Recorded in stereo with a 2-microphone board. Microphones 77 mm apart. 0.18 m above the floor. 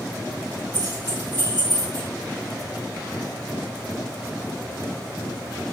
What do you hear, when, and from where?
0.7 s keys jangling: 60° right (ahead or behind), 3 m; by 2.1 s 75° right (ahead or behind), 3 m